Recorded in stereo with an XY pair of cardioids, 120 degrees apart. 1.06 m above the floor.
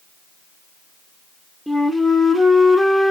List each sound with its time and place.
1.7 s a flute: 5° right, 0.5 m